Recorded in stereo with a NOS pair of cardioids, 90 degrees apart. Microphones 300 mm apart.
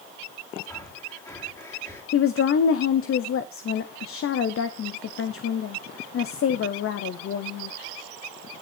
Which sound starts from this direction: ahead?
Breathing, at 0.7 s.